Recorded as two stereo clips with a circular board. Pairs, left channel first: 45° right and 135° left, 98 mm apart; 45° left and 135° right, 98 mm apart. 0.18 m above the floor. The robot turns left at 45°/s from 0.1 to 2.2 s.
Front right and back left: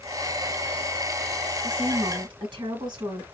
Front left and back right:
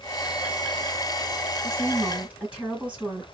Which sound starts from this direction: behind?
A woman speaking, at 1.6 s.